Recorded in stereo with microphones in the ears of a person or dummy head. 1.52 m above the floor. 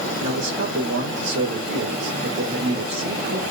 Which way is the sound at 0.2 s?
80° right.